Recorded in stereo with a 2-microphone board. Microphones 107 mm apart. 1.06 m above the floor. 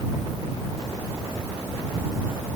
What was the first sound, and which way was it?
Only background noise.